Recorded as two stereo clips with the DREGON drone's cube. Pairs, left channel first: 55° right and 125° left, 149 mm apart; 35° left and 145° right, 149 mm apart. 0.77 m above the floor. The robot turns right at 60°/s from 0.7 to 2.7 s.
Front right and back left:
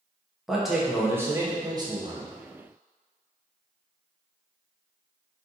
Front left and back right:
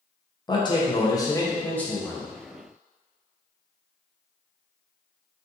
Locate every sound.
0.5 s a man speaking: 35° left, 0.6 m; by 2.3 s 135° left, 0.6 m